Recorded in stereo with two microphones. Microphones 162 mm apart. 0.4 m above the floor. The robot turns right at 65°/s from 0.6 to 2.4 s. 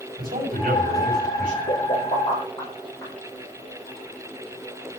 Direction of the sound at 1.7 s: 70° left (ahead or behind).